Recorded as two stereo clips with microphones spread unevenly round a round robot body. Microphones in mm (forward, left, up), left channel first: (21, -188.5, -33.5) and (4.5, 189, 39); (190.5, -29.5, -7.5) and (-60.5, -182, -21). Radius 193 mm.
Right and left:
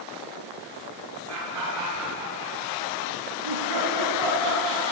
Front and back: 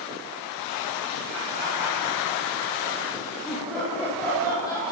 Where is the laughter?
140° left, 7 m; by 4.9 s 110° left, 7 m.